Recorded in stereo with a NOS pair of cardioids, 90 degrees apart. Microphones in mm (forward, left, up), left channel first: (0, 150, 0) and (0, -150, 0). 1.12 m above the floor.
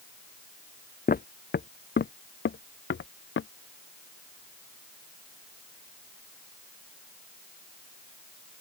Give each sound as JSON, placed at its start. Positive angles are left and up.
{"t": 1.1, "sound": "footsteps", "azimuth_deg": 30}